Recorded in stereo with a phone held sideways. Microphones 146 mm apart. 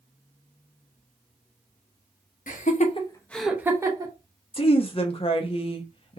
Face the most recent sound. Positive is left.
turn(degrees=40)  # may be behind; listen again after turning